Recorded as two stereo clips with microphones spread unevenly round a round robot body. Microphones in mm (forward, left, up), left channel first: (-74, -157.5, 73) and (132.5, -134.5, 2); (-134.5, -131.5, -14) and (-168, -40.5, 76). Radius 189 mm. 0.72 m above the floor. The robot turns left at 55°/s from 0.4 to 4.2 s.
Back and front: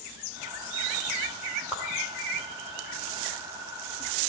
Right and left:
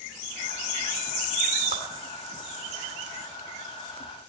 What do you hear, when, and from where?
1.7 s a whoosh: 85° left, 1.9 m; by 1.8 s 80° left, 1.9 m